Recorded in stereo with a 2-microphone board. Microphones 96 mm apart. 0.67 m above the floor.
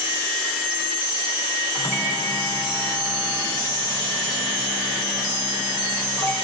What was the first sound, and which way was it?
A microwave, 35° right (ahead or behind).